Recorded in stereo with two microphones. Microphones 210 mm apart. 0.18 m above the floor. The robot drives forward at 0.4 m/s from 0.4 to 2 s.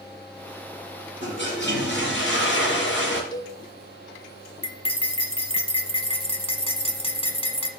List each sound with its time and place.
1.2 s a toilet flushing: 60° left (ahead or behind), 3.5 m
3.3 s a cowbell: 20° left (ahead or behind), 0.7 m
4.6 s cutlery clinking: 25° left (ahead or behind), 0.7 m